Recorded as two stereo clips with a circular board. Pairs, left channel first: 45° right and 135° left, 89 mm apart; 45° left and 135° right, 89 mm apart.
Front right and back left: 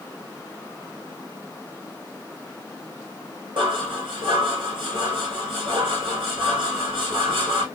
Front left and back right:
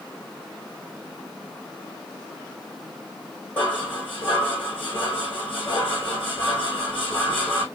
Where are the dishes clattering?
120° left, 4.5 m.